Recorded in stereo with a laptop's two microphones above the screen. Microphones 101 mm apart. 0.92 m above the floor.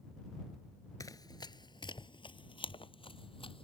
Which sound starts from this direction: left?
Running footsteps, at 1.0 s.